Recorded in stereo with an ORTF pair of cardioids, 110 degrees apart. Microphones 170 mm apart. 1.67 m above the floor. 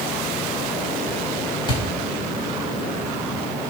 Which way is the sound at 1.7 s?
30° left.